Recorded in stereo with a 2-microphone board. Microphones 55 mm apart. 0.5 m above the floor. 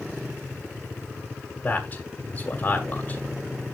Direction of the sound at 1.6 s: 30° left (ahead or behind).